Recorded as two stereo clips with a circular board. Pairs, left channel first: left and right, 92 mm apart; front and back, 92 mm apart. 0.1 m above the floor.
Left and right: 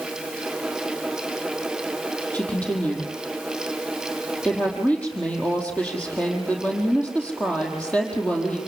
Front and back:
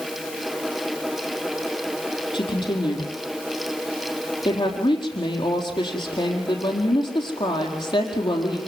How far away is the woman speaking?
About 4.5 m.